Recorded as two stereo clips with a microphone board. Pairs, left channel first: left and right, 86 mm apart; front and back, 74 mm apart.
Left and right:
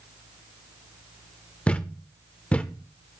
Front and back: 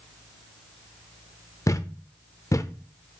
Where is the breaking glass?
I don't hear breaking glass.